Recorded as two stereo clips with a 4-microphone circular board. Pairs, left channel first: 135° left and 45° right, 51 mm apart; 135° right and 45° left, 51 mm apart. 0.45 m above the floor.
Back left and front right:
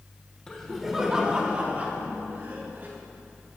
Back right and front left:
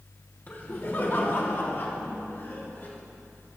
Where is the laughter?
160° right, 1.3 m; by 2.9 s 90° right, 3.5 m.